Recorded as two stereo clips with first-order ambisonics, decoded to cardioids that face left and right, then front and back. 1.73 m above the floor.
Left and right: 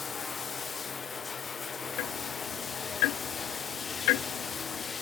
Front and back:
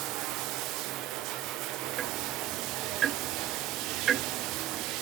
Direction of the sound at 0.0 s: 160° left.